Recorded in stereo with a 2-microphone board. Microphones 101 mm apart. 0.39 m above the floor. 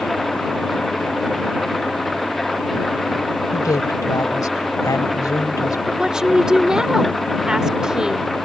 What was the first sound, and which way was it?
An engine running, centre (ahead or behind).